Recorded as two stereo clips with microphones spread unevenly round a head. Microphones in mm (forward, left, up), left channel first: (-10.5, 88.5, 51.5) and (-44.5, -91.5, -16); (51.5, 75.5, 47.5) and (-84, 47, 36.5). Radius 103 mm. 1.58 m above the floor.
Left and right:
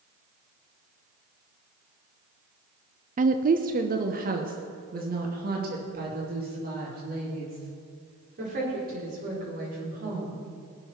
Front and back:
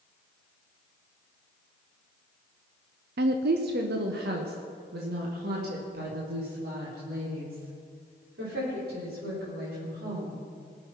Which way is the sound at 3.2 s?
155° right.